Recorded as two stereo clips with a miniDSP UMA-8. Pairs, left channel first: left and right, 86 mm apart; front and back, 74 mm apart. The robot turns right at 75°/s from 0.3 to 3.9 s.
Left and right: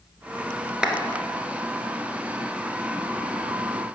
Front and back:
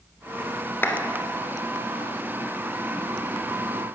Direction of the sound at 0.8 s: 20° right.